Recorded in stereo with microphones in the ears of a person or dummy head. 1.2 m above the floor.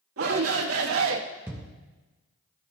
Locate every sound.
0.2 s a shout: 80° right, 1.7 m; by 1.2 s 70° right (ahead or behind), 1.3 m
1.5 s a thud: 15° right (ahead or behind), 0.6 m